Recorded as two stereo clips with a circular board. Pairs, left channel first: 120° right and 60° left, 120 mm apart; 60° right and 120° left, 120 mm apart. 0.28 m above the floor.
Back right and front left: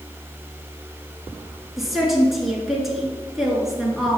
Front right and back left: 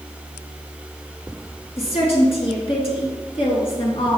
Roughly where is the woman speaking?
Ahead right.